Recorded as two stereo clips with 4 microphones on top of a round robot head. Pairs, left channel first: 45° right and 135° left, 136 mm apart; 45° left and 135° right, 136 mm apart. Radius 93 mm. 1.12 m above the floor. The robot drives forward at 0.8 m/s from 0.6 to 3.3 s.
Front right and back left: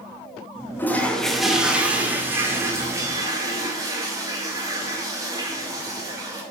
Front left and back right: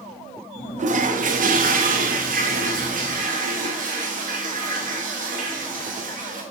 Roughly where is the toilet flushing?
Behind right.